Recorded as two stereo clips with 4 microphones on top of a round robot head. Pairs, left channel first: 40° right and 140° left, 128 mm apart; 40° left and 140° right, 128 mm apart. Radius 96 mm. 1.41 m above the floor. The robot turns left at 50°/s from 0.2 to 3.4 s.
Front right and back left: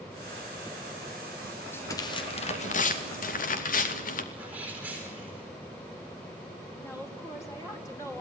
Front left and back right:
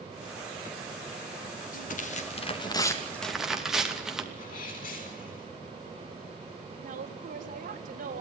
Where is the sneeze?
60° left, 8 m.